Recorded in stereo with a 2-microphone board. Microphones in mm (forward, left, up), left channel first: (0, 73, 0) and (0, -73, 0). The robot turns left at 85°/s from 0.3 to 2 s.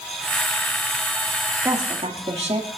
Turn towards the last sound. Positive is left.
turn(degrees=-45)  # may be behind; listen again after turning